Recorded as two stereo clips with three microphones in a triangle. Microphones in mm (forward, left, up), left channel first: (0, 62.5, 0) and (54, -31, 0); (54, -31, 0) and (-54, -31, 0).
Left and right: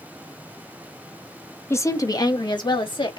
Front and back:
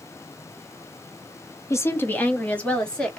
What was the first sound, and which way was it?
A woman speaking, 55° left.